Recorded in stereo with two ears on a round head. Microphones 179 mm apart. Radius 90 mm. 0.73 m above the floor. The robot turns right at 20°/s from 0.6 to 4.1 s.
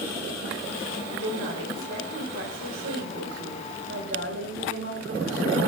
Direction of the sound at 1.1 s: 115° right.